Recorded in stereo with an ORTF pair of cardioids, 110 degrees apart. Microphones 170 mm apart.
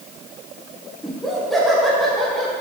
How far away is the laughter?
About 1.6 m.